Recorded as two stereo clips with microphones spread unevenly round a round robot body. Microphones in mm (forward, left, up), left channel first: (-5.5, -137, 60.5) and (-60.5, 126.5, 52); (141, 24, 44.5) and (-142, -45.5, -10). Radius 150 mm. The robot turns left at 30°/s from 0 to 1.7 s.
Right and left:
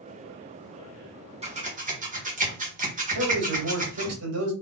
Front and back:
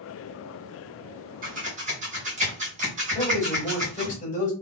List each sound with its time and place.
1.4 s scissors: 160° left, 2 m; by 4.2 s 150° left, 2 m
3.1 s a man speaking: 85° left, 2.5 m